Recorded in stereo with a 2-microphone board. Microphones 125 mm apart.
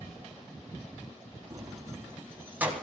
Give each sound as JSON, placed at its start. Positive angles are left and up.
{"t": 1.5, "sound": "keys jangling", "side_deg": -30, "distance_m": 2.0}